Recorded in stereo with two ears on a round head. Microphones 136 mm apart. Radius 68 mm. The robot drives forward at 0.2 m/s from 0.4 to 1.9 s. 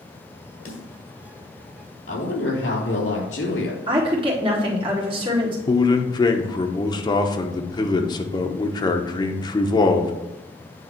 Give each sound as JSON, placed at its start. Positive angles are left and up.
{"t": 0.7, "sound": "a snare drum", "side_deg": 55, "distance_m": 2.5}
{"t": 2.1, "sound": "a woman speaking", "side_deg": 85, "distance_m": 3.0}
{"t": 3.9, "sound": "a woman speaking", "side_deg": -35, "distance_m": 2.5}
{"t": 5.7, "sound": "a man speaking", "side_deg": 25, "distance_m": 0.9}